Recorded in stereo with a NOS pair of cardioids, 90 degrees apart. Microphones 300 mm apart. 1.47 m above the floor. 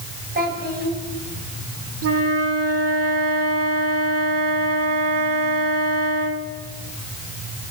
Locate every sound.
0.3 s a child speaking: 30° right, 9 m
2.0 s a flute: 50° right, 3 m